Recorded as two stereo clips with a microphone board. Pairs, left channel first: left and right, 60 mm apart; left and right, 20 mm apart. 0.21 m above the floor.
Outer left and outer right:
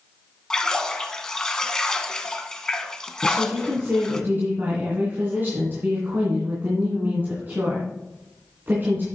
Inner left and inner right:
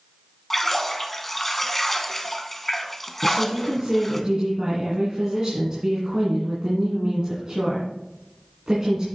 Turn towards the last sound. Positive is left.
turn(degrees=-35)  # may be behind; listen again after turning